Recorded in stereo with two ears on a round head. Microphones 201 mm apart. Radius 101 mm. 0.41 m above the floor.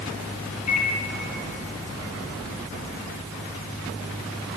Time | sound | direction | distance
0.7 | a microwave | 30° left (ahead or behind) | 6 m